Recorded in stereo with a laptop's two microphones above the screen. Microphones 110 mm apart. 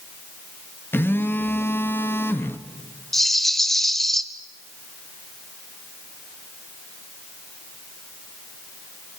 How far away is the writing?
I don't hear writing.